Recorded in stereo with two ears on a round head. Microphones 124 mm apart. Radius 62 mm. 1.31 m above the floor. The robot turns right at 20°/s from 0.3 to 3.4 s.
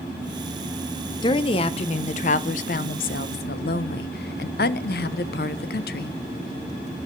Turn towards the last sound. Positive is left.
turn(degrees=75)